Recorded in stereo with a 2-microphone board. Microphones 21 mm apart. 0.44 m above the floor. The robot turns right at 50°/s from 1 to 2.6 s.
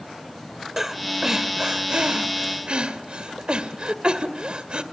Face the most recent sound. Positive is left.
turn(degrees=-50)  # may be behind; listen again after turning